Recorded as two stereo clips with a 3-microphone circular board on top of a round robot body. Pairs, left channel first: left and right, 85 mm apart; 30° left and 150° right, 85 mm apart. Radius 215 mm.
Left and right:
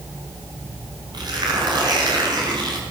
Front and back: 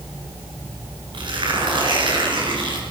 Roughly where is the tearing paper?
Behind right.